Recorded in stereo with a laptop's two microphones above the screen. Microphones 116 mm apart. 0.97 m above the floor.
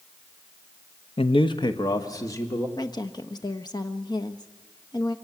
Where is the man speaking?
55° left (ahead or behind), 0.8 m; by 2.7 s 25° left (ahead or behind), 2.5 m.